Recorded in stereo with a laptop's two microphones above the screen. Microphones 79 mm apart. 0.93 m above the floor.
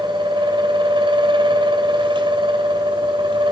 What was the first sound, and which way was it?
A fan, 85° right.